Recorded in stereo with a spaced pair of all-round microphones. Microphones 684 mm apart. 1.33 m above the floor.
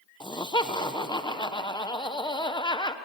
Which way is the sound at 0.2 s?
5° left (ahead or behind).